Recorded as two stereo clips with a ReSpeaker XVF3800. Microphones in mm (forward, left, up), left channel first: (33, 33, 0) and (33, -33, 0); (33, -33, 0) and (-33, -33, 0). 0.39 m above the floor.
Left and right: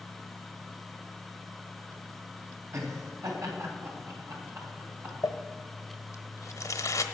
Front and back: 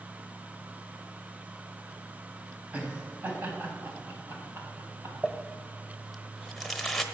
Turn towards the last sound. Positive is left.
turn(degrees=85)